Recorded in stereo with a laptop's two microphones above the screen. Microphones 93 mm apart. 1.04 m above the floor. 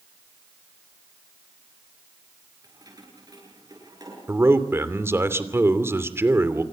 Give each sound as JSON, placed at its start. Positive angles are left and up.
{"t": 2.6, "sound": "keys jangling", "side_deg": -40, "distance_m": 10.0}
{"t": 4.3, "sound": "a man speaking", "side_deg": -25, "distance_m": 2.5}